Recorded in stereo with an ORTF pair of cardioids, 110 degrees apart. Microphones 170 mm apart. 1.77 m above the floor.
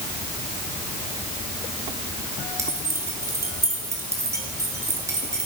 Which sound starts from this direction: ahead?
Keys jangling, at 2.6 s.